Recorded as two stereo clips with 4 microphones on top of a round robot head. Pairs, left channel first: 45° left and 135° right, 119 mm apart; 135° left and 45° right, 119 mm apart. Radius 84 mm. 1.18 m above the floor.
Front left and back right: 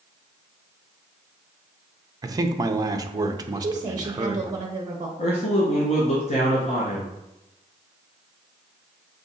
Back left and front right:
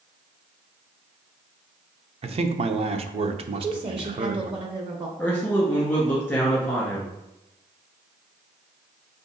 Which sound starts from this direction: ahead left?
A man speaking, at 5.2 s.